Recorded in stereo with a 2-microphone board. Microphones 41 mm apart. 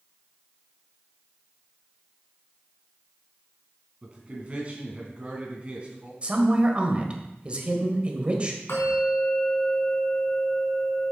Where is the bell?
65° left (ahead or behind), 3 m.